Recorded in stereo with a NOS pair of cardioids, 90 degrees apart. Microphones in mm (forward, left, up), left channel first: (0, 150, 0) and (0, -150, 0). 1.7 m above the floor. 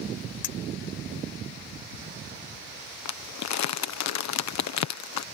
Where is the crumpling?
65° left.